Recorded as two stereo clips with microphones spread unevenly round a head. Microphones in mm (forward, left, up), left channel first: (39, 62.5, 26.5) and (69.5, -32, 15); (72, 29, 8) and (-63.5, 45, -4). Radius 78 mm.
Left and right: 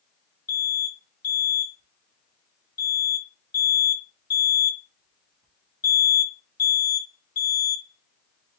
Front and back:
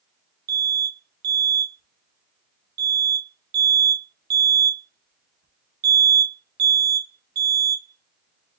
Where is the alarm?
175° left, 1.9 m.